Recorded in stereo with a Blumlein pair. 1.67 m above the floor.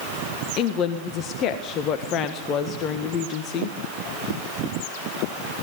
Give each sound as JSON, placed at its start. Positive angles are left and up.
{"t": 0.6, "sound": "a woman speaking", "azimuth_deg": 35, "distance_m": 1.6}